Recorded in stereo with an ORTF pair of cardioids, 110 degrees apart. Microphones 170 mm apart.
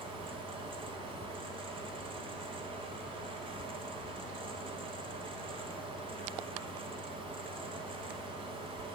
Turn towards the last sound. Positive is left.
turn(degrees=-30)